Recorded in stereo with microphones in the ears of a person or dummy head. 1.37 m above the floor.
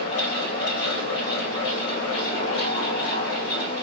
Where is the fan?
35° left (ahead or behind), 0.9 m.